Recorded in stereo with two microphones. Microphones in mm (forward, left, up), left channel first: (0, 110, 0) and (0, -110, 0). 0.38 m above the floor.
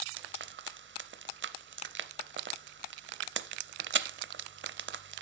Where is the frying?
60° right (ahead or behind), 0.5 m.